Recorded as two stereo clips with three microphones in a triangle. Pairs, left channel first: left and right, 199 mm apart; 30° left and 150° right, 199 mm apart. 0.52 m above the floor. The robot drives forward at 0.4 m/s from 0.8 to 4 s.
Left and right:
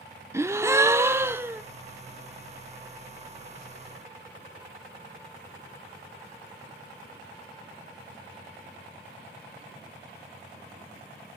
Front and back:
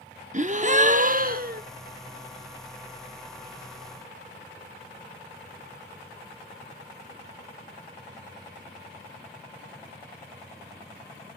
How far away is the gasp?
About 0.8 m.